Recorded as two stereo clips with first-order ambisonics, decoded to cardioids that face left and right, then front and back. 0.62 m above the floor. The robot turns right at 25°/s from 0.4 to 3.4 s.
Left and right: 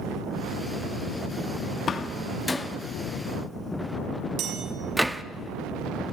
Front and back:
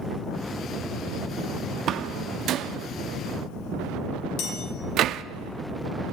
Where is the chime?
40° right, 3.5 m.